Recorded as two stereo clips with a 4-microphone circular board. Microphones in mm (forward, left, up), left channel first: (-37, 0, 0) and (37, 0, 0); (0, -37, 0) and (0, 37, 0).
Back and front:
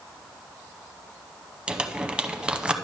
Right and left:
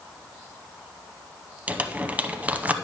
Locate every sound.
1.7 s crumpling: 60° left, 0.7 m